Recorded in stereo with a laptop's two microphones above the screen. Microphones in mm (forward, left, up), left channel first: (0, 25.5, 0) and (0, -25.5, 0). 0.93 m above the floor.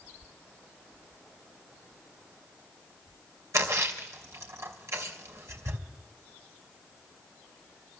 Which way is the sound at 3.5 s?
75° right (ahead or behind).